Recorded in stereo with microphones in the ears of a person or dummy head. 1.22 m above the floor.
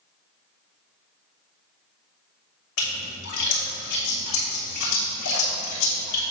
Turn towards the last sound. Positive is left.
turn(degrees=70)  # may be behind; listen again after turning